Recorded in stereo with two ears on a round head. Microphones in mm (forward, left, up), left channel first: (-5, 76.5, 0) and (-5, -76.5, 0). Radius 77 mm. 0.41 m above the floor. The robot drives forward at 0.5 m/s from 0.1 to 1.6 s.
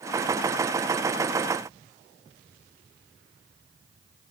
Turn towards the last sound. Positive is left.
No sound to turn to.